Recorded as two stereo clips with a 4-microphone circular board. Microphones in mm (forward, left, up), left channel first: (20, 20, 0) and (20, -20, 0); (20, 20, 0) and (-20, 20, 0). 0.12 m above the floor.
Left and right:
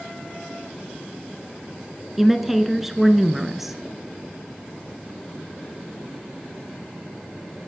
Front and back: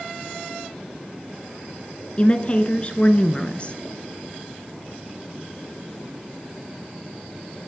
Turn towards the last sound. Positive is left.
turn(degrees=-10)